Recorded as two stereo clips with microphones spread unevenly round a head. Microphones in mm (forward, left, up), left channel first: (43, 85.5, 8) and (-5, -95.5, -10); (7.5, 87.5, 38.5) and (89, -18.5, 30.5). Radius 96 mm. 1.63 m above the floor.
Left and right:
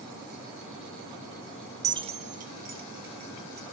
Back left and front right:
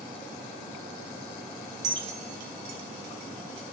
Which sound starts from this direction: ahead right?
Keys jangling, at 1.8 s.